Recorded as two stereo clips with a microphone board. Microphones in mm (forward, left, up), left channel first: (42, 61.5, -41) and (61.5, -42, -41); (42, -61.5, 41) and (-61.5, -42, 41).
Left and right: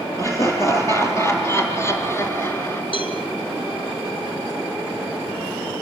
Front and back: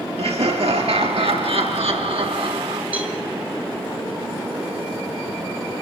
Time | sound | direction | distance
0.2 | laughter | 160° left | 5 m
2.9 | a cowbell | 95° left | 3 m